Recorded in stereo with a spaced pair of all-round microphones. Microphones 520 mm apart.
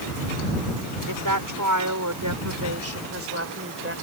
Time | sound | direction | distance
1.1 | a woman speaking | 40° right (ahead or behind) | ?